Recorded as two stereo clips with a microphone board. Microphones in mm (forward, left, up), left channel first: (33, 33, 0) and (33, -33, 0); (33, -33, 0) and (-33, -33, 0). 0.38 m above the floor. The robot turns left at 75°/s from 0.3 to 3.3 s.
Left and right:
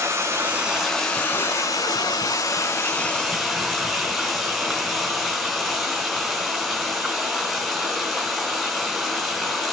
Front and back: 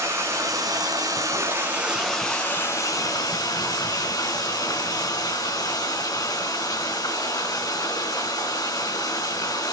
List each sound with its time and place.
0.0 s running water: 135° right, 4 m; by 9.7 s straight ahead, 4 m